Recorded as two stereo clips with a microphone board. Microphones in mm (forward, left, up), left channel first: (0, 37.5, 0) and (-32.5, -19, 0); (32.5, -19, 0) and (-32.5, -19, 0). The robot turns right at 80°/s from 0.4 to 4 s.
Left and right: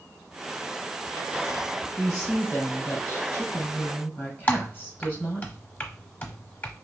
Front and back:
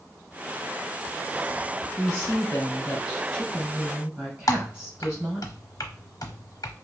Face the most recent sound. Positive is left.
turn(degrees=0)